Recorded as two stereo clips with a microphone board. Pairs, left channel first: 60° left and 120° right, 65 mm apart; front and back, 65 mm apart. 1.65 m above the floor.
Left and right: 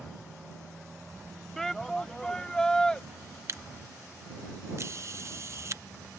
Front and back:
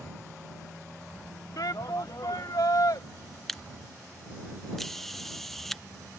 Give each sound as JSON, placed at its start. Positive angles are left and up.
{"t": 1.6, "sound": "a shout", "azimuth_deg": -25}
{"t": 3.5, "sound": "a camera shutter", "azimuth_deg": -85}